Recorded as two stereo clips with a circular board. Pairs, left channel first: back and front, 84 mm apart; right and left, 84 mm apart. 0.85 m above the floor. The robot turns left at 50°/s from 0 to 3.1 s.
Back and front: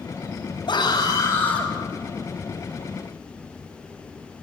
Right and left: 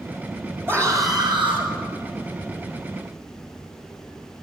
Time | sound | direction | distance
0.7 | a scream | 155° left | 6 m